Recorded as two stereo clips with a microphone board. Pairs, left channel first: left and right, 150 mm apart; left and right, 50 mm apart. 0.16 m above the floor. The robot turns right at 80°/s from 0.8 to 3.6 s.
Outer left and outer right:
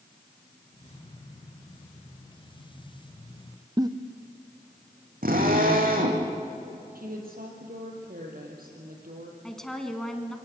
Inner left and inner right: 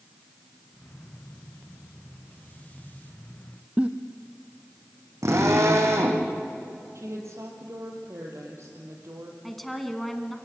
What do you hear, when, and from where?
3.8 s a giggle: 25° right (ahead or behind), 1.1 m
5.2 s a drill: 75° right (ahead or behind), 4 m
7.0 s a woman speaking: 75° right (ahead or behind), 4.5 m
9.4 s a woman speaking: 5° left (ahead or behind), 1.7 m